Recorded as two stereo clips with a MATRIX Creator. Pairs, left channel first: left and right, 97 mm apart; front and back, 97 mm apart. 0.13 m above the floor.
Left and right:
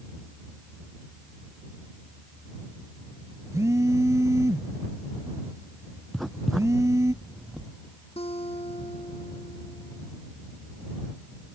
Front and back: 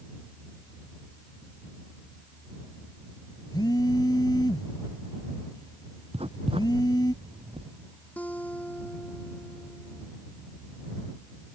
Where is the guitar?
75° left.